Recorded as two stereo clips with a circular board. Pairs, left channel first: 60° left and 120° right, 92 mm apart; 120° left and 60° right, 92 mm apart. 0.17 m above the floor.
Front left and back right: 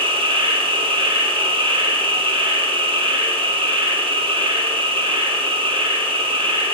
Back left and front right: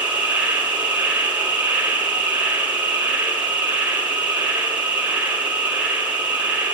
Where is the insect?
135° right, 2.5 m.